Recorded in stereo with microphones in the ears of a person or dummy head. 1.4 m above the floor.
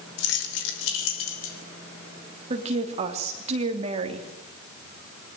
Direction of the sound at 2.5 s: 35° right (ahead or behind).